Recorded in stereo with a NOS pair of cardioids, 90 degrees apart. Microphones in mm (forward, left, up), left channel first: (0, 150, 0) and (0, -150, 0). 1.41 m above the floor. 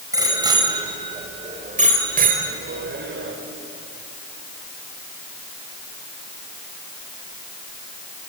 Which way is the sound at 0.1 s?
10° right.